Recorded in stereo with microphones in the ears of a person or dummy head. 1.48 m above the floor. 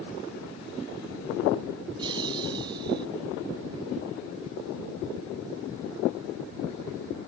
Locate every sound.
2.0 s laughter: 25° right (ahead or behind)